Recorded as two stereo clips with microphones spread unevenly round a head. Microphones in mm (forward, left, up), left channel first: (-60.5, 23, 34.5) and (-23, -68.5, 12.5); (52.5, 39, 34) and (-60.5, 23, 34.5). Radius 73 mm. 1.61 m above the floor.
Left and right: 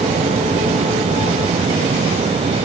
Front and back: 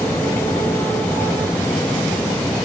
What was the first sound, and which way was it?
Only background noise.